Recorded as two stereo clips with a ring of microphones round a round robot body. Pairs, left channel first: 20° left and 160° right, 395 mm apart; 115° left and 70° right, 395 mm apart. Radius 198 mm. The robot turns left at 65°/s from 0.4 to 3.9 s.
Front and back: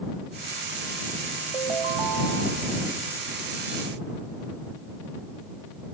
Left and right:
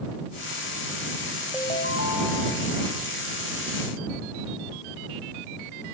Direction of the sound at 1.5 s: 160° right.